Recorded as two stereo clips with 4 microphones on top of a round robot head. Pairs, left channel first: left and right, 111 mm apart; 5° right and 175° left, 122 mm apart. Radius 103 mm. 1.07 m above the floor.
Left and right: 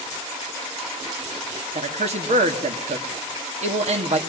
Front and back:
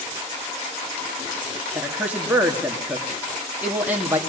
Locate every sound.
1.8 s a man speaking: 105° right, 2.5 m